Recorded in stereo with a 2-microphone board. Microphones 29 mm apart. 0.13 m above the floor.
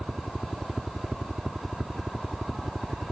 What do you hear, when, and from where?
0.0 s a helicopter: 5° right (ahead or behind)